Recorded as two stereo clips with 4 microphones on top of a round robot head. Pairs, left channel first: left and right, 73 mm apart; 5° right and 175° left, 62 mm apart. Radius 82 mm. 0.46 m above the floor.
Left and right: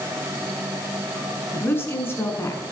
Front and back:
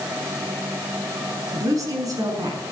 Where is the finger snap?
I don't hear a finger snap.